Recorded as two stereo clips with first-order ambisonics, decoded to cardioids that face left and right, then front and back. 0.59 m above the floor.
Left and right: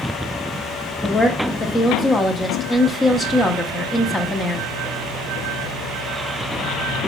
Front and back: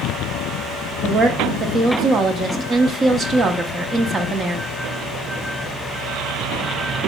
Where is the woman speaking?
145° left, 1.0 m.